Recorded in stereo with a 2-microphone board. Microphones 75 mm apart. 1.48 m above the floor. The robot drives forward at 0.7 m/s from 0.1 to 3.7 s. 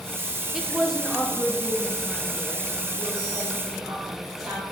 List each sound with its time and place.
0.5 s a woman speaking: 5° right (ahead or behind), 0.7 m; by 4.6 s centre (ahead or behind), 3 m